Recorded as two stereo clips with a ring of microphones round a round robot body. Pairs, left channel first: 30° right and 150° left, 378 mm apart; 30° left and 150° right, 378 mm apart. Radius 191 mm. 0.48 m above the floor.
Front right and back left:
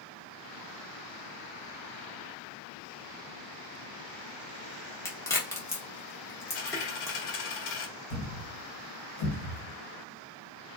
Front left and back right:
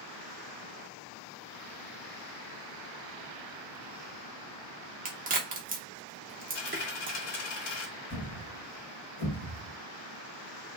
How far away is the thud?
About 1.1 m.